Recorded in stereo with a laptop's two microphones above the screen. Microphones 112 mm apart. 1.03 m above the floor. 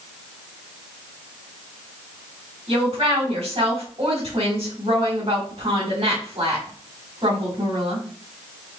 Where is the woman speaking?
55° right (ahead or behind), 3.5 m.